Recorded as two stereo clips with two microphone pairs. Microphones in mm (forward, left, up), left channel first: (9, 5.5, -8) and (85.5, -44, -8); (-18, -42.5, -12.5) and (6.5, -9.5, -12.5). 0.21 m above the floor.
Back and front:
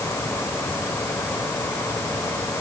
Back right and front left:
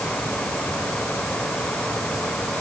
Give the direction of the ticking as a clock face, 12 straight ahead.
I don't hear ticking.